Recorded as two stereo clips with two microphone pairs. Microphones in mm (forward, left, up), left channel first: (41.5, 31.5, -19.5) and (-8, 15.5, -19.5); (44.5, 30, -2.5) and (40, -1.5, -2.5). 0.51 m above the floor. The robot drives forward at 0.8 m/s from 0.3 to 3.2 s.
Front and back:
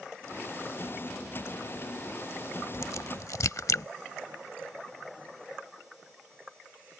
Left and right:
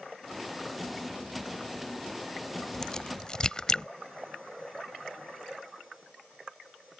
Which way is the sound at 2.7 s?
10° left.